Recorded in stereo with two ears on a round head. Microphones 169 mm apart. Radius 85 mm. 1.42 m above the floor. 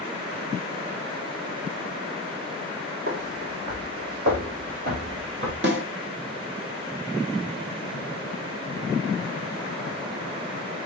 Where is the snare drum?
60° right (ahead or behind), 2.0 m.